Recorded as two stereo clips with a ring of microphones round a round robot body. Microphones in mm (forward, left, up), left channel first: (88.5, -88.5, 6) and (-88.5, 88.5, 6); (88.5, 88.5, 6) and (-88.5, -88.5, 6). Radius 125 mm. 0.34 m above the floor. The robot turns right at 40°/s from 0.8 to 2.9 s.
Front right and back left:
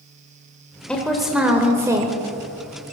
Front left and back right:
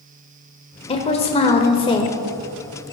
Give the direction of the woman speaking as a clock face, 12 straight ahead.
11 o'clock.